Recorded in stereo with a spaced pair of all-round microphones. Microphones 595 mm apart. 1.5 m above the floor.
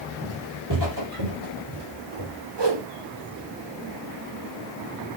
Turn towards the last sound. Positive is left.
turn(degrees=-45)  # may be behind; listen again after turning